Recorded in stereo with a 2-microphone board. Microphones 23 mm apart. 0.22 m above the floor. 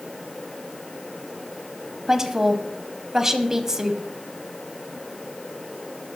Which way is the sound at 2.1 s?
20° right (ahead or behind).